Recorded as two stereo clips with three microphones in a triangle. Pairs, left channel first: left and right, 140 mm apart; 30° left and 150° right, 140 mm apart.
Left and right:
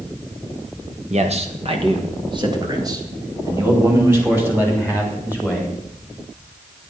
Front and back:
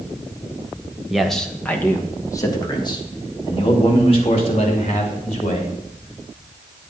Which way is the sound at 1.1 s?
65° right.